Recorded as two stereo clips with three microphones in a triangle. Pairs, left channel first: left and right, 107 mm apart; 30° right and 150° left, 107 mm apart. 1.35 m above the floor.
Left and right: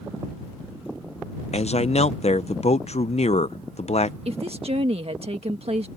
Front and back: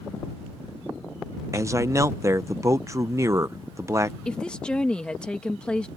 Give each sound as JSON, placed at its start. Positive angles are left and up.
{"t": 1.5, "sound": "a man speaking", "azimuth_deg": 90}
{"t": 4.2, "sound": "a woman speaking", "azimuth_deg": -110}